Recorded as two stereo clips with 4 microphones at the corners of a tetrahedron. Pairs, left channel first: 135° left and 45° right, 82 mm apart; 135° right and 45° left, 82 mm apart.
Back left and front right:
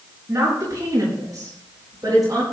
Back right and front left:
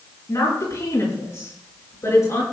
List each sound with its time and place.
0.3 s a woman speaking: 95° right, 7.5 m; by 2.4 s 85° right, 10 m